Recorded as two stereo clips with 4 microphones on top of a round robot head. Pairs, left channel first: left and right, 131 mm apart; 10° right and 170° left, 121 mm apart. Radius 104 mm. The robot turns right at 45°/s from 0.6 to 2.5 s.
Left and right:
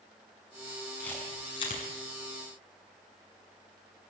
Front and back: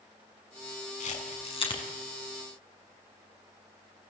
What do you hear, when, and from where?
1.0 s a camera shutter: 5° left, 7 m; by 1.8 s 40° left, 7 m